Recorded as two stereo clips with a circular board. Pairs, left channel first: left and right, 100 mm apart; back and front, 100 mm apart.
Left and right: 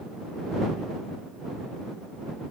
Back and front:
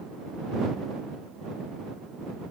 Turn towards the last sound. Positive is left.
No sound to turn to.